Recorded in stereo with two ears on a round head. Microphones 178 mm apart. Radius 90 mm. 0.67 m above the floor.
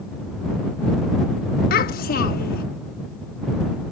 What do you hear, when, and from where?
1.7 s a child speaking: 45° left (ahead or behind)